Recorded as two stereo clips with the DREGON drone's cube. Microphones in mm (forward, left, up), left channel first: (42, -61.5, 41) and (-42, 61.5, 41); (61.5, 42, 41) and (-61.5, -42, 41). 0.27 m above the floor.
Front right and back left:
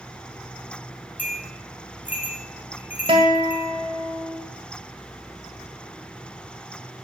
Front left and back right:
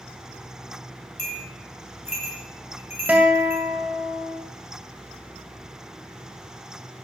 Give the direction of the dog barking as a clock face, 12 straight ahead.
No dog barking in this recording.